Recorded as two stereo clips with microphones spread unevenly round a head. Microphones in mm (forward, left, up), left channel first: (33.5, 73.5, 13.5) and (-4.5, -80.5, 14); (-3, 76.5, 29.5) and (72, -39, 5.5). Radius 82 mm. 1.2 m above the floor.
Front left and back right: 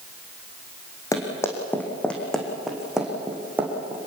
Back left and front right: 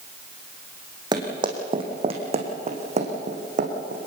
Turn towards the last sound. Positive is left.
turn(degrees=-30)